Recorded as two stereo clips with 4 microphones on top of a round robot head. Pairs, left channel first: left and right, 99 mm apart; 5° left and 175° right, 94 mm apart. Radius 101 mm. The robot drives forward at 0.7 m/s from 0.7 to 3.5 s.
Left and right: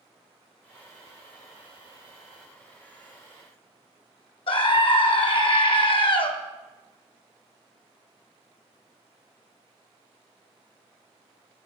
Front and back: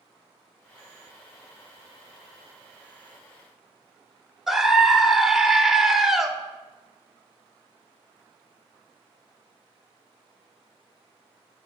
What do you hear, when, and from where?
4.5 s a scream: 95° left, 1.0 m